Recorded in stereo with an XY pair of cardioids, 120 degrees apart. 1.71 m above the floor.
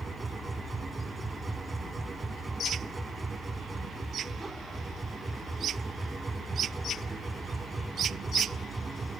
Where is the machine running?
20° right.